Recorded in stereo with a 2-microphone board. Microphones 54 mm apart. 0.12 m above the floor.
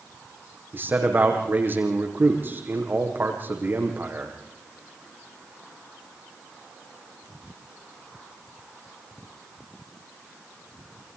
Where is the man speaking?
40° right (ahead or behind), 6.5 m.